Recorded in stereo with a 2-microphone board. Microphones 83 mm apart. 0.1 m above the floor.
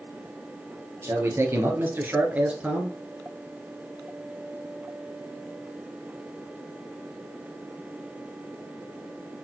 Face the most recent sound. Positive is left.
turn(degrees=-10)  # may be behind; listen again after turning